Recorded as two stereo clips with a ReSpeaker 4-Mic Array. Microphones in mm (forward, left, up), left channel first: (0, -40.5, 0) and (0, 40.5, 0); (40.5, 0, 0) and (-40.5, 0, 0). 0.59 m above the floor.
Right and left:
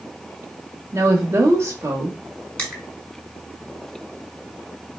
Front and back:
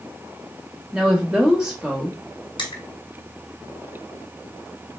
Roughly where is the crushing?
Ahead.